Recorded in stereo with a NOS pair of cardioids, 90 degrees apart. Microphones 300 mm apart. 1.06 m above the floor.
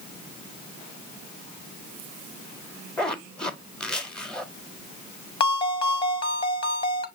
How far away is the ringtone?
About 0.9 m.